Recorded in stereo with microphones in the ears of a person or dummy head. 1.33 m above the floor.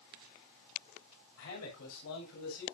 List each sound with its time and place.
1.4 s a man speaking: 75° left (ahead or behind), 7.5 m